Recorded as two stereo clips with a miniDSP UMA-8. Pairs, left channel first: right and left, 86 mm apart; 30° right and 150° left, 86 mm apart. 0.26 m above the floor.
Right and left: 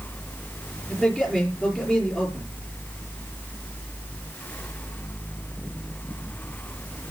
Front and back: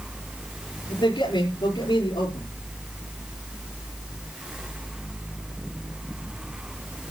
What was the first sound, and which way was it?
A man speaking, 10° right.